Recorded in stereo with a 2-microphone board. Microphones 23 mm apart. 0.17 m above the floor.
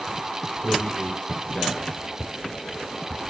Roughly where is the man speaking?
Left.